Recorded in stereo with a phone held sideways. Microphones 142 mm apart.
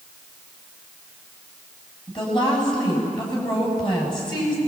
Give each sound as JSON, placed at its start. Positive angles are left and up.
{"t": 2.1, "sound": "a woman speaking", "side_deg": 30, "distance_m": 8.5}